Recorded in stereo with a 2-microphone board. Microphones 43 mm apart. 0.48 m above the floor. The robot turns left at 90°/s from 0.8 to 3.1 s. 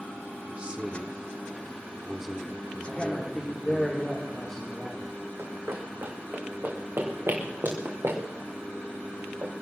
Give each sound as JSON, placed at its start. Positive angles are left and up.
{"t": 0.5, "sound": "a man speaking", "azimuth_deg": -40, "distance_m": 0.8}
{"t": 2.9, "sound": "a man speaking", "side_deg": -10, "distance_m": 2.5}
{"t": 5.4, "sound": "running footsteps", "side_deg": -70, "distance_m": 2.0}